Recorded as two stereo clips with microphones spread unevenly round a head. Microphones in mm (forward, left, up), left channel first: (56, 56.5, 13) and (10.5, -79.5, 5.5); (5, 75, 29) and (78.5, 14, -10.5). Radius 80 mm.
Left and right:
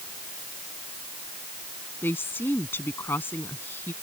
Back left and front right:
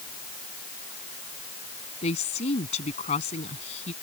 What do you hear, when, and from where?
2.0 s a woman speaking: 150° left